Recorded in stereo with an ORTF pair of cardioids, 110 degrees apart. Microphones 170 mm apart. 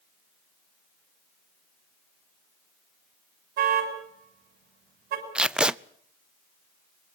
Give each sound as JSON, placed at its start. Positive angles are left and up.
{"t": 3.6, "sound": "a car horn", "azimuth_deg": -70, "distance_m": 6.5}
{"t": 5.3, "sound": "tape being pulled", "azimuth_deg": -5, "distance_m": 0.5}